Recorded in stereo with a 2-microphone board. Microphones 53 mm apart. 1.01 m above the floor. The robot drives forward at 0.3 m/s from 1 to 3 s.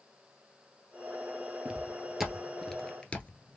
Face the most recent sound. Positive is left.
turn(degrees=35)  # may be behind; listen again after turning